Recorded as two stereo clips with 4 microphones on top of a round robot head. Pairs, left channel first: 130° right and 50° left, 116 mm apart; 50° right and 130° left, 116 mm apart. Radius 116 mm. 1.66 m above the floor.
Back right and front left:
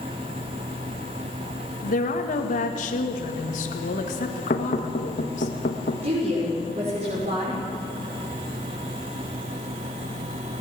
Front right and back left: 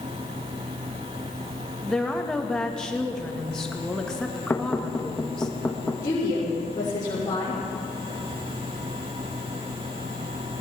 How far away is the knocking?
About 1.3 m.